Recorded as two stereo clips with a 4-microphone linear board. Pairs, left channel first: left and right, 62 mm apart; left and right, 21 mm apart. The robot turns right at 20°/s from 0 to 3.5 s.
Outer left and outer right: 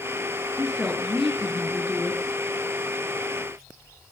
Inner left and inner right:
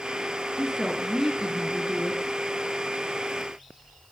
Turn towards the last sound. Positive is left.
turn(degrees=35)